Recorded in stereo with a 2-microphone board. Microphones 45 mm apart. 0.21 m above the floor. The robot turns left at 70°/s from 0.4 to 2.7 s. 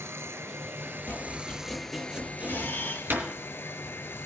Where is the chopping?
50° left (ahead or behind), 3 m; by 3.2 s 55° right (ahead or behind), 3 m.